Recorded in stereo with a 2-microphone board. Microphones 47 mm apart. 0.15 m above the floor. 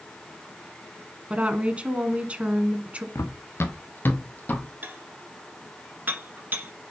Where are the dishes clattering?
40° right (ahead or behind), 1.5 m.